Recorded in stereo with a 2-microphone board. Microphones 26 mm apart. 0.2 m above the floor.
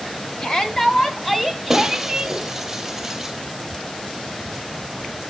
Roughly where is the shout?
Left.